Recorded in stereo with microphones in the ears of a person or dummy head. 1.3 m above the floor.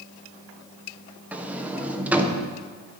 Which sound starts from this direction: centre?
A sliding door, at 1.3 s.